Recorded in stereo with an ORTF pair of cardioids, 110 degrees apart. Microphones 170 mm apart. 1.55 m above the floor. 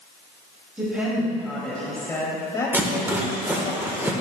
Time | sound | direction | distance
0.8 | a woman speaking | 10° right | 2.5 m
2.7 | a rattle | 10° right | 1.2 m